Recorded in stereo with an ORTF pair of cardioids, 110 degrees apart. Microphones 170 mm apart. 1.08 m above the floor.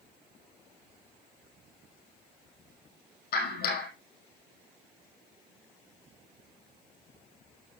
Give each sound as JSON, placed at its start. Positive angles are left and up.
{"t": 3.3, "sound": "a clap", "azimuth_deg": 65, "distance_m": 5.5}